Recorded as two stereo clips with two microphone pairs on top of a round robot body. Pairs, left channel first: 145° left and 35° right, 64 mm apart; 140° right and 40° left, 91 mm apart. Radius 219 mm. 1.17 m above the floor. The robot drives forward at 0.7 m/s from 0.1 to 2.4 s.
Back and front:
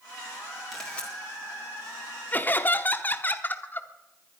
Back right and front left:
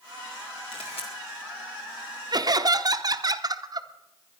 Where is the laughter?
80° left, 0.9 m; by 4.4 s 85° left, 0.9 m.